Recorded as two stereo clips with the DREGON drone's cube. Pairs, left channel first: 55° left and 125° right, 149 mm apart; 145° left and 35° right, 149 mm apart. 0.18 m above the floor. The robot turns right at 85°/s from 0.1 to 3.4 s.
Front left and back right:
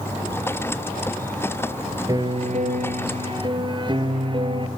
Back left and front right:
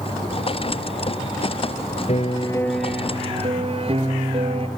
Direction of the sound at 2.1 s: 175° left.